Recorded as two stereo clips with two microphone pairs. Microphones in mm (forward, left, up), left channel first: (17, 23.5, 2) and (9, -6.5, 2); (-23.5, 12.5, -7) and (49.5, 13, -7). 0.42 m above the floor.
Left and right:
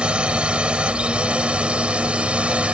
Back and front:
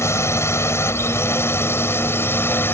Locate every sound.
0.0 s a drone: 140° right; by 2.7 s 130° right